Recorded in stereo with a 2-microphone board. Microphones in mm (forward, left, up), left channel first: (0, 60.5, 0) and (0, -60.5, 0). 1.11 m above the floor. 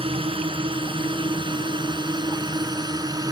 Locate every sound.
0.0 s a drone: 50° right (ahead or behind); by 3.3 s 30° right (ahead or behind)